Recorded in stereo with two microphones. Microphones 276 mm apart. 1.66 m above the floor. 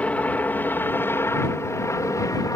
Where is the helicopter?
5° left (ahead or behind); by 2.6 s 10° left (ahead or behind).